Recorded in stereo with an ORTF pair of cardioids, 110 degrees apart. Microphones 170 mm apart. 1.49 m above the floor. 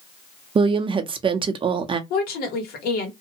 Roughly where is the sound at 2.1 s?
Left.